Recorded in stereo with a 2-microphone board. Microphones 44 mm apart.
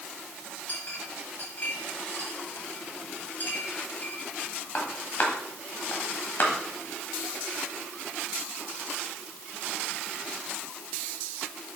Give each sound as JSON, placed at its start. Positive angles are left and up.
{"t": 0.7, "sound": "a clink", "side_deg": 45, "distance_m": 1.7}